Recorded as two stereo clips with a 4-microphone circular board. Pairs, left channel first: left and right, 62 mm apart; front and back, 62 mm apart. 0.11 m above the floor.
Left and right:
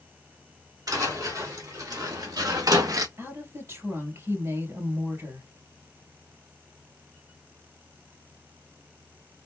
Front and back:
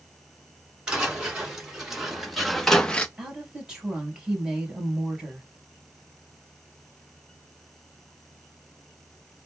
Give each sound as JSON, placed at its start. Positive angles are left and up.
{"t": 0.9, "sound": "footsteps", "azimuth_deg": -100, "distance_m": 2.5}
{"t": 3.2, "sound": "a woman speaking", "azimuth_deg": -105, "distance_m": 2.0}